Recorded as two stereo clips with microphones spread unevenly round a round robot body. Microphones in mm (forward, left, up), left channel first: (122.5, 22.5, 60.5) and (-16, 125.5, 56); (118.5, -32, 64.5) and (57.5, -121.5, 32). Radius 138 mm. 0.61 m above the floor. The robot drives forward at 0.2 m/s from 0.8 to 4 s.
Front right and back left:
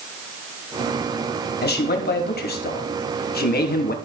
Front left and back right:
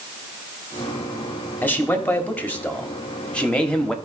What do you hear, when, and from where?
1.6 s a man speaking: 25° right, 1.5 m; by 3.9 s 40° right, 1.2 m